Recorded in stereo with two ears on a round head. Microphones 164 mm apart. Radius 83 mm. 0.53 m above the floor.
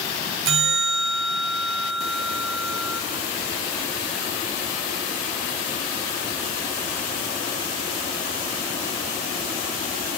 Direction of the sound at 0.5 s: 75° right (ahead or behind).